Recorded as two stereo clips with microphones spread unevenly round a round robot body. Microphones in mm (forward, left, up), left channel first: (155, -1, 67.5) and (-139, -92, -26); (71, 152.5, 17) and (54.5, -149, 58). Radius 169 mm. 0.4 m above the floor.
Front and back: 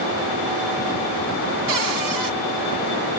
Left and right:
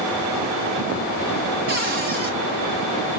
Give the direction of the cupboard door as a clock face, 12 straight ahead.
5 o'clock.